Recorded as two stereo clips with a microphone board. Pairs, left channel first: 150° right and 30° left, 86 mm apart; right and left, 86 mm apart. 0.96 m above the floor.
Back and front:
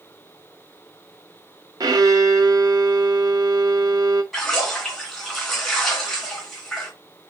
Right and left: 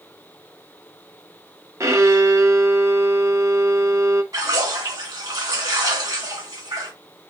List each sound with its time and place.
1.8 s a violin: 45° left, 0.6 m
4.3 s a splash: 125° left, 1.4 m